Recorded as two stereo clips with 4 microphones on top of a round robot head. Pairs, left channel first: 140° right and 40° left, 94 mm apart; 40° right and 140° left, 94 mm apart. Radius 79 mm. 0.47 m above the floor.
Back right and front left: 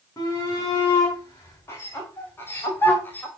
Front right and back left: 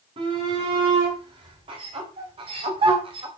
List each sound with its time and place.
0.2 s a shout: 160° left, 5.5 m; by 3.3 s 150° left, 2.5 m